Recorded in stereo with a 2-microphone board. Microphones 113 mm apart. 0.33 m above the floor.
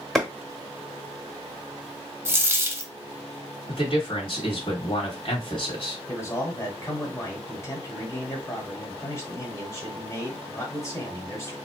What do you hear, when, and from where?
0.1 s a clap: 5° left (ahead or behind), 1.0 m
2.2 s a dropped coin: 20° right (ahead or behind), 0.7 m
3.7 s a man speaking: 50° left (ahead or behind), 1.8 m
6.1 s a man speaking: 25° left (ahead or behind), 1.6 m